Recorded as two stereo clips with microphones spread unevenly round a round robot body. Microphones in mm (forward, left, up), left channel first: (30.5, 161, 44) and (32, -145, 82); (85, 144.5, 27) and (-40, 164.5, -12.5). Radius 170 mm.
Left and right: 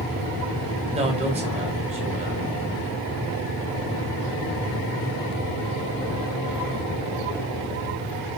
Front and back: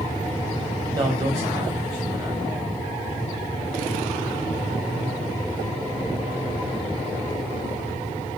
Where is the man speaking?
160° right, 1.4 m.